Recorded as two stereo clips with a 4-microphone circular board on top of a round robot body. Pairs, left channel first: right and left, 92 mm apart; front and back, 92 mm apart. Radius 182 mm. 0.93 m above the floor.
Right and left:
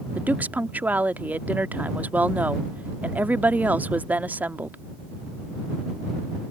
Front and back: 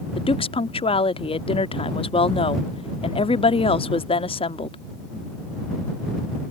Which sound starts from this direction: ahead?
A woman speaking, at 0.1 s.